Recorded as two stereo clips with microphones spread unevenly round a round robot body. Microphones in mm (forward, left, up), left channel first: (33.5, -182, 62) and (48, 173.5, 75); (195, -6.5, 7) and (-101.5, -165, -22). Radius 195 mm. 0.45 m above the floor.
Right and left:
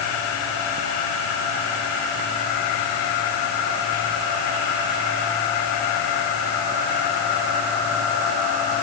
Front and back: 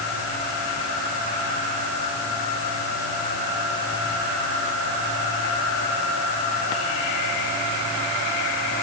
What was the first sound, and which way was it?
Only background noise.